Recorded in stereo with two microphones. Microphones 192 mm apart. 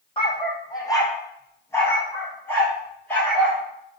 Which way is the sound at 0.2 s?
30° left (ahead or behind).